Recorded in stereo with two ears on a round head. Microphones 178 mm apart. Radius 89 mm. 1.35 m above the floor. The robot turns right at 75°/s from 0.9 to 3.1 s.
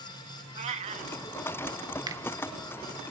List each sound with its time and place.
0.6 s a cat meowing: 35° right (ahead or behind), 1.0 m; by 1.1 s 45° right (ahead or behind), 1.0 m
2.1 s a finger snap: 20° right (ahead or behind), 1.5 m; by 2.2 s 10° right (ahead or behind), 1.5 m